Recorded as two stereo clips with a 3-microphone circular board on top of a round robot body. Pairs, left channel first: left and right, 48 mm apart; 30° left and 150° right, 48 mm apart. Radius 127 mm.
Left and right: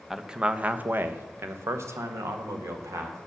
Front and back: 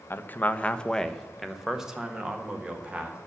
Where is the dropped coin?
No dropped coin in this recording.